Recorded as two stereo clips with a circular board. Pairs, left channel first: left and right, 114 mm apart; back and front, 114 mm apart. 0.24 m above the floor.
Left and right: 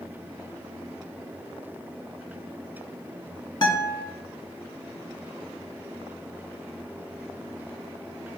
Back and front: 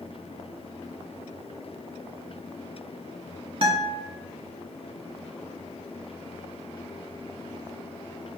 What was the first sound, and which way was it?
A guitar, 40° left.